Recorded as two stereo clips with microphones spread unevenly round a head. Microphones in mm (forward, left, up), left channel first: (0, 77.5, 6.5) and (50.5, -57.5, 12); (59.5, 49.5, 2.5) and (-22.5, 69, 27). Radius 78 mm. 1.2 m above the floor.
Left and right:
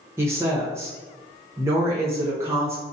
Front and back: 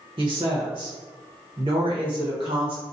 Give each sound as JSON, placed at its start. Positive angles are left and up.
{"t": 0.2, "sound": "a woman speaking", "azimuth_deg": -145, "distance_m": 0.9}